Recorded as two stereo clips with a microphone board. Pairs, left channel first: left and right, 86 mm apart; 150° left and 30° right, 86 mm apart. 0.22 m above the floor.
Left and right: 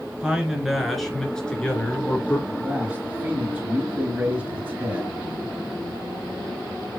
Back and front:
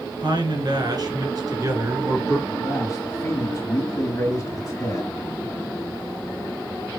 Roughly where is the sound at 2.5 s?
Behind right.